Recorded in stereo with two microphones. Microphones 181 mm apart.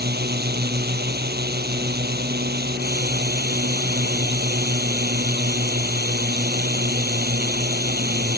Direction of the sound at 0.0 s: 65° right (ahead or behind).